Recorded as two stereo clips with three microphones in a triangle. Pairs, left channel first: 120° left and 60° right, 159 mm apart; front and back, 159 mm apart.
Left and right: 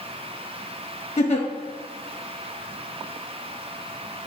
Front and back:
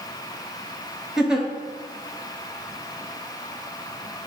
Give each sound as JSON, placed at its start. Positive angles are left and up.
{"t": 1.2, "sound": "a giggle", "azimuth_deg": 95, "distance_m": 0.8}